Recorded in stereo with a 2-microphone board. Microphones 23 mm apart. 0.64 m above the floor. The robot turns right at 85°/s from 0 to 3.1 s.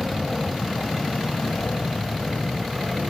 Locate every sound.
0.0 s an aircraft: 30° right (ahead or behind); by 3.1 s 40° right (ahead or behind)